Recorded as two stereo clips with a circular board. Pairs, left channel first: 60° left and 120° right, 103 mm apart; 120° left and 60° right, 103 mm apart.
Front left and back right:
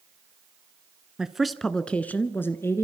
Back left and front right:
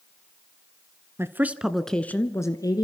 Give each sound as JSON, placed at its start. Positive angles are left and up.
{"t": 1.2, "sound": "a woman speaking", "azimuth_deg": -45, "distance_m": 1.2}